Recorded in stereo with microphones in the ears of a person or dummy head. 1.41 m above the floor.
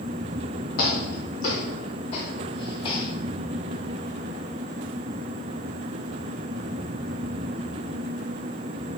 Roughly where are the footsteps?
Left.